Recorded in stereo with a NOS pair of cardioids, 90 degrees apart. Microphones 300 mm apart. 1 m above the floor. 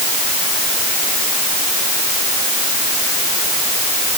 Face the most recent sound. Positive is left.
No sound to turn to.